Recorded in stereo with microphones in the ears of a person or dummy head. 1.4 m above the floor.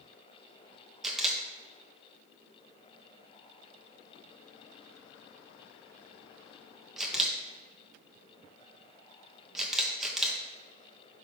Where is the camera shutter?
Centre (ahead or behind), 1.5 m.